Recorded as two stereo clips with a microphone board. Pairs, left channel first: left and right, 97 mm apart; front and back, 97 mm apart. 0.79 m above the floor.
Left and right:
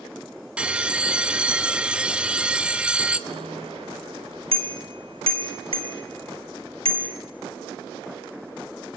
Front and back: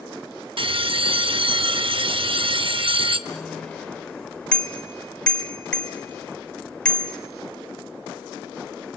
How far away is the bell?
About 0.7 m.